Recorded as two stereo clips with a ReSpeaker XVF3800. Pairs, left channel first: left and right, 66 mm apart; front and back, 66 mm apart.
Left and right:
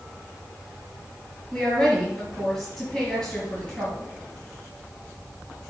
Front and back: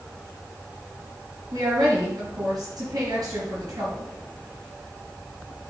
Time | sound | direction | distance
1.5 | a woman speaking | 170° left | 4 m